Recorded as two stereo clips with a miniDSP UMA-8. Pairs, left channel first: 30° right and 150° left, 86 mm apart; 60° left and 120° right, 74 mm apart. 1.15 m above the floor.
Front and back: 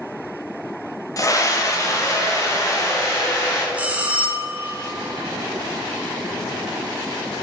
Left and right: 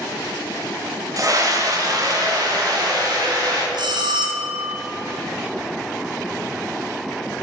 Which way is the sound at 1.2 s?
80° right.